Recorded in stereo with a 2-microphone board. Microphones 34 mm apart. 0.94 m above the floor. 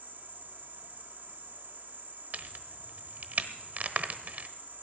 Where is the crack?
55° right (ahead or behind), 0.9 m.